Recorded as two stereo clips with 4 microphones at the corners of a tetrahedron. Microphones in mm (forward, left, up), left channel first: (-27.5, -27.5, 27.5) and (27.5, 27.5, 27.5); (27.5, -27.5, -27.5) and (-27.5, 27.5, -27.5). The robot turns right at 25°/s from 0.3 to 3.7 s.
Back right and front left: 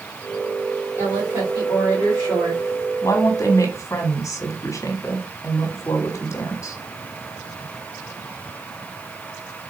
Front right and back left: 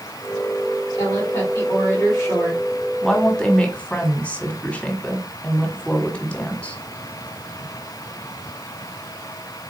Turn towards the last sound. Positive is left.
turn(degrees=-110)